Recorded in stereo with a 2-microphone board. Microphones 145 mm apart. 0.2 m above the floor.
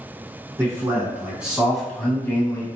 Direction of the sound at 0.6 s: 20° right (ahead or behind).